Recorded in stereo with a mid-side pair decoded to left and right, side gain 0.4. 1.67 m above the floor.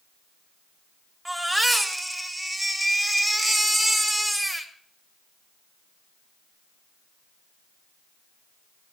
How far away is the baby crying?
About 2 m.